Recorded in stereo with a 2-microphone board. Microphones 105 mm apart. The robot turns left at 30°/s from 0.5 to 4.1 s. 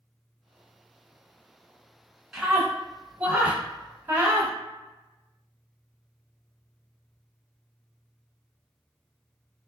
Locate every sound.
2.3 s a scream: 5° right (ahead or behind), 1.2 m; by 4.5 s 25° right (ahead or behind), 1.2 m